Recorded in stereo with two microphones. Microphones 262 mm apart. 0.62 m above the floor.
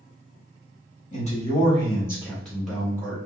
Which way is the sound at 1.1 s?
30° left (ahead or behind).